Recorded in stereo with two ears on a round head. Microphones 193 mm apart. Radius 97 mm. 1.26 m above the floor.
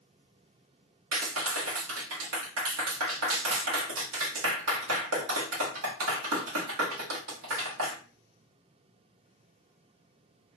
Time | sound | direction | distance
1.1 | a clap | 80° right | 1.0 m